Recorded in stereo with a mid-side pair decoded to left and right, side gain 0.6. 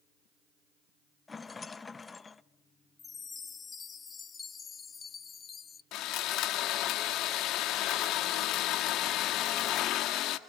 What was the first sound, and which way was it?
A rattle, 20° left.